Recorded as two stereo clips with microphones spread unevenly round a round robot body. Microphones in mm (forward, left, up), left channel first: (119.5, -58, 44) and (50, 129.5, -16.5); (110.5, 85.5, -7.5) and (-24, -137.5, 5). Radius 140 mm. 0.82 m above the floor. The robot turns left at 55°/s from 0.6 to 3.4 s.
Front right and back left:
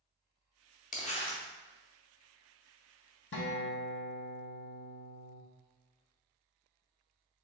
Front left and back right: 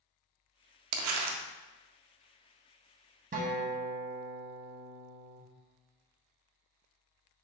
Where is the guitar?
75° right, 0.9 m; by 5.4 s 80° right, 0.9 m.